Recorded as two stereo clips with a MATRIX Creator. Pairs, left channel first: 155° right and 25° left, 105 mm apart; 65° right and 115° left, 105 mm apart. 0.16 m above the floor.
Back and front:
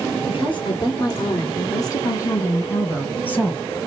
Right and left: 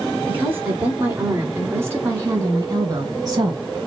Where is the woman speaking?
175° right, 2.5 m; by 3.6 s 130° left, 1.7 m.